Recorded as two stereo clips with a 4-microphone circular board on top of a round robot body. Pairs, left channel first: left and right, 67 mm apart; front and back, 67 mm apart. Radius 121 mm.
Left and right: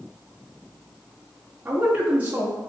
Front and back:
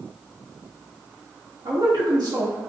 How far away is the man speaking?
About 2.5 m.